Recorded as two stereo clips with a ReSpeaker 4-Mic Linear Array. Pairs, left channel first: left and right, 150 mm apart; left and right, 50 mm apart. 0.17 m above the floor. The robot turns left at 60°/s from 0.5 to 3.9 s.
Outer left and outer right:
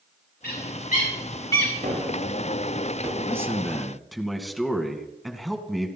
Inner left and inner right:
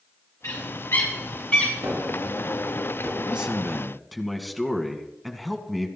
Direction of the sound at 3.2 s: 135° right.